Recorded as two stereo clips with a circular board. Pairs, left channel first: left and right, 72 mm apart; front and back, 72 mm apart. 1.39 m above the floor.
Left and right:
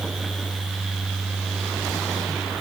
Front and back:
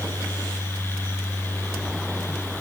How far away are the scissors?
No scissors in this recording.